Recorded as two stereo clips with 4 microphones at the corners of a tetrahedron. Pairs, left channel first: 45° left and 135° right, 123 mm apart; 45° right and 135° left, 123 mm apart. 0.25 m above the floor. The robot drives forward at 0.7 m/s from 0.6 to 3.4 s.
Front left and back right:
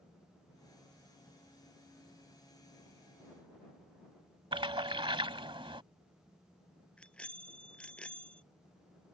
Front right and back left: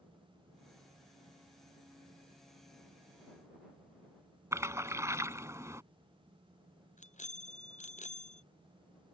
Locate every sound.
4.5 s a splash: 165° right
7.0 s a bicycle bell: 35° right